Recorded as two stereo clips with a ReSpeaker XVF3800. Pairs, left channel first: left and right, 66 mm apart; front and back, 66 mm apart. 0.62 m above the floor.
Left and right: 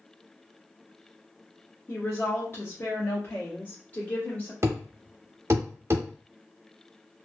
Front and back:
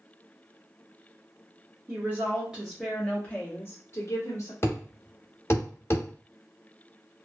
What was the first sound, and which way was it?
A woman speaking, 140° left.